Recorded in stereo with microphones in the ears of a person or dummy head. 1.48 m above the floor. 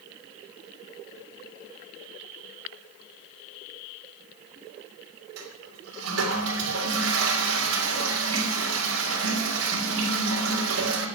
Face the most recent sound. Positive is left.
turn(degrees=-80)